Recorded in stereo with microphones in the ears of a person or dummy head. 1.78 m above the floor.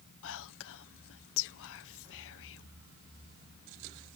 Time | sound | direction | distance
0.2 | whispering | 75° left (ahead or behind) | ?